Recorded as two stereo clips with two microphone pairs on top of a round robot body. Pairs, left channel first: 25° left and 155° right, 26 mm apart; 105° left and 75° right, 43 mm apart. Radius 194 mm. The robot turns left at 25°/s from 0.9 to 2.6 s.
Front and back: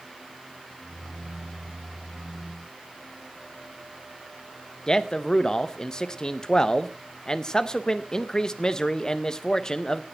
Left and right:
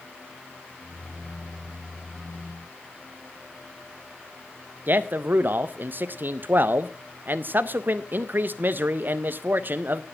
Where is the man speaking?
40° right, 0.8 m.